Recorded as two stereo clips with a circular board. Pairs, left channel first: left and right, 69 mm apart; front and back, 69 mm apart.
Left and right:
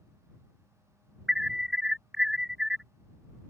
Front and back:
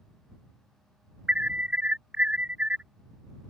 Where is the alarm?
160° right.